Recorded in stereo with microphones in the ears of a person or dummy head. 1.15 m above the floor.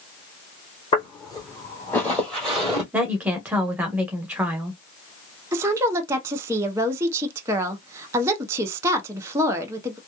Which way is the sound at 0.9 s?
30° left (ahead or behind).